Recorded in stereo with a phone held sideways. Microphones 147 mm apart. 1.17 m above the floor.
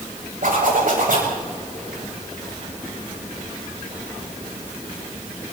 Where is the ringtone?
I don't hear a ringtone.